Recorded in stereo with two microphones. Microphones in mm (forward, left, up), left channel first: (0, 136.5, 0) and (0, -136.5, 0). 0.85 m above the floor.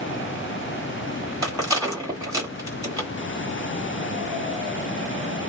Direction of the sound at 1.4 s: 10° right (ahead or behind).